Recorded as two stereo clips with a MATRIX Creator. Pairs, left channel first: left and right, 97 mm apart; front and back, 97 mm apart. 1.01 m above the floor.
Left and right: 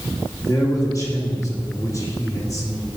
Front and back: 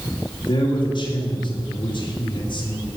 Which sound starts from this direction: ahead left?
A man speaking, at 0.5 s.